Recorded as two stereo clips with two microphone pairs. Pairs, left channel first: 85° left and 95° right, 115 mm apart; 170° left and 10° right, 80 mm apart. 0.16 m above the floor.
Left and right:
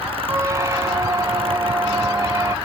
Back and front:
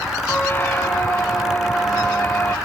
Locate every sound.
0.3 s a squeak: 140° right, 0.7 m